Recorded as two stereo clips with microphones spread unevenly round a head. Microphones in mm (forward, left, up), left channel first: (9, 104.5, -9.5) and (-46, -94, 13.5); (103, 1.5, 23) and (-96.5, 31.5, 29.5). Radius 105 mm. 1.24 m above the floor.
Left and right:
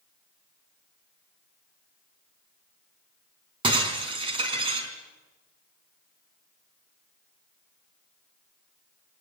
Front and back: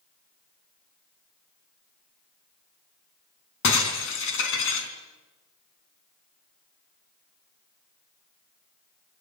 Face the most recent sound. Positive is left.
turn(degrees=-40)